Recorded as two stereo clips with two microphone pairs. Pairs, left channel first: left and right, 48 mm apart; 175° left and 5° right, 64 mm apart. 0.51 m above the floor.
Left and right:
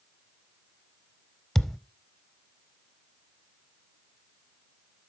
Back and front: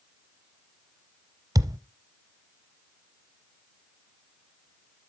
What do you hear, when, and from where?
1.6 s a thud: straight ahead, 0.9 m